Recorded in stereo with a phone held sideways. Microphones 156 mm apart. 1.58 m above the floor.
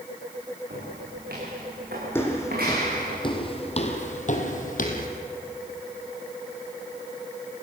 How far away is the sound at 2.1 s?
About 4 m.